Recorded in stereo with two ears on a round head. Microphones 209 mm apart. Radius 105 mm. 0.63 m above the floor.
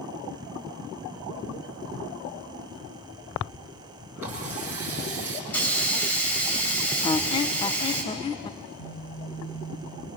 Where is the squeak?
20° left (ahead or behind), 0.5 m.